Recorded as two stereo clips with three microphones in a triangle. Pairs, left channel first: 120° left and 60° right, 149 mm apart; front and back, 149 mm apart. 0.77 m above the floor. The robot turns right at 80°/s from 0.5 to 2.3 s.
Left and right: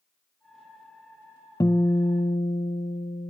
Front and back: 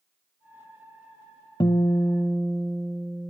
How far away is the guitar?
About 0.9 m.